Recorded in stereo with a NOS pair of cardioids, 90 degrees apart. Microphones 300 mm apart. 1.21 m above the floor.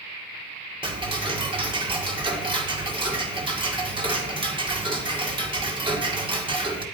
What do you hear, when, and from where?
0.8 s ticking: 15° right, 1.9 m